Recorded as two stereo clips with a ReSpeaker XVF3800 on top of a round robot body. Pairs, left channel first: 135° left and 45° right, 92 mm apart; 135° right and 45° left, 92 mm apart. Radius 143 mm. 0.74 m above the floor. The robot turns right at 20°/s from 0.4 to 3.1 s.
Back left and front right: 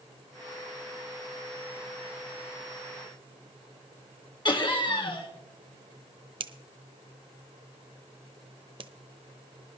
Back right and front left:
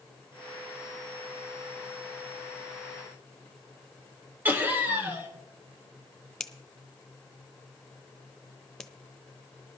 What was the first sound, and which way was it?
Laughter, 115° left.